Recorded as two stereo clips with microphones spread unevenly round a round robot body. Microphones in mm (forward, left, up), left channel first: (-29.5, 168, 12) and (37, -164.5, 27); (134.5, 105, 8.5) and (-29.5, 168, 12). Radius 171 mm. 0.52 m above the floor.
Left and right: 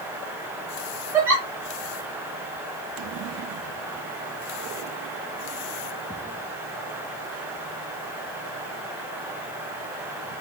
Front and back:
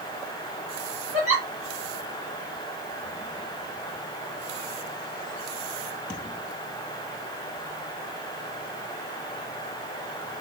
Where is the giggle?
165° right, 1.3 m.